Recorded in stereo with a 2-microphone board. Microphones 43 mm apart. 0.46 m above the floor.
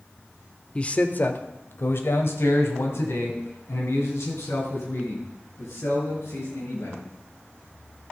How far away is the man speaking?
About 0.8 m.